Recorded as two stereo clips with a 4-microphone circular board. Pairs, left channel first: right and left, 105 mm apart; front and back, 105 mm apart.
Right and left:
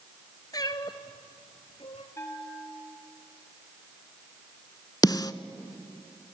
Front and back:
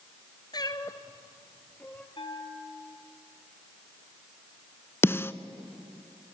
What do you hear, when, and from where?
0.5 s a cat meowing: 40° right, 1.2 m; by 2.1 s 75° right, 1.6 m
2.2 s a bell: 30° right, 3 m
5.0 s a snare drum: 60° right, 0.7 m